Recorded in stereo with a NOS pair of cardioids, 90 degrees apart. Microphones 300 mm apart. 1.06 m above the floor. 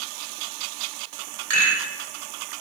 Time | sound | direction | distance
1.5 | a rattle | 60° right | 1.6 m